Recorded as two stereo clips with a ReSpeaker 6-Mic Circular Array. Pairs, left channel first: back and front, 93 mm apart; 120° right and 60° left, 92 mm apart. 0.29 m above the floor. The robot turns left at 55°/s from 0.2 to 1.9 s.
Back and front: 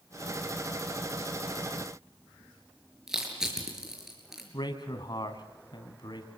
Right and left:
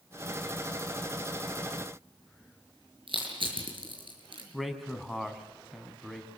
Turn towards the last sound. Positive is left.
turn(degrees=150)